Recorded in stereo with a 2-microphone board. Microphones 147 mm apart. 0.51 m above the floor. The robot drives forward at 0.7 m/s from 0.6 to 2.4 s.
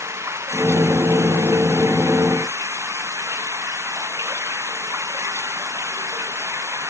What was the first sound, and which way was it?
Running water, 20° right (ahead or behind).